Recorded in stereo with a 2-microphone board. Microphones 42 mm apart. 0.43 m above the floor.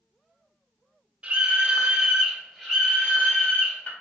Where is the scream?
25° right (ahead or behind), 1.2 m; by 3.9 s 40° left (ahead or behind), 1.6 m.